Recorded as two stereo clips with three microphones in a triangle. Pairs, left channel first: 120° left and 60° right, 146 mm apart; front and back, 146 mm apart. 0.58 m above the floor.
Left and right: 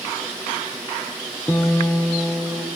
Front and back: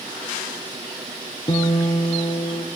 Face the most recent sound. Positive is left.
turn(degrees=50)